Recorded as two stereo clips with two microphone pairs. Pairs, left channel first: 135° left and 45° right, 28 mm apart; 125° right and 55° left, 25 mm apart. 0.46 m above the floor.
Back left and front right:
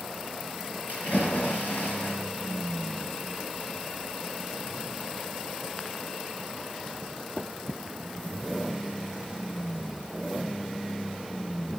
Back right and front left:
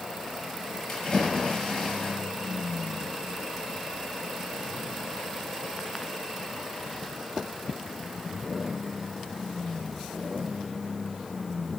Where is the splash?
155° left, 7 m.